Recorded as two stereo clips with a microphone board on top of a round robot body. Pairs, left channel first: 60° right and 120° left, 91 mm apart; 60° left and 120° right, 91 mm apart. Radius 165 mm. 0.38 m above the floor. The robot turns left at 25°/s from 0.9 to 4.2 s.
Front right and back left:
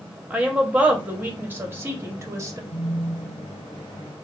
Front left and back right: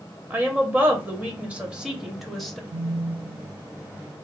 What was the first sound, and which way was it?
A woman speaking, 175° right.